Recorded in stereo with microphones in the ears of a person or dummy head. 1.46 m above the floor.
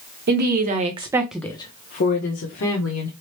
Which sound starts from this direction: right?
A woman speaking, at 0.3 s.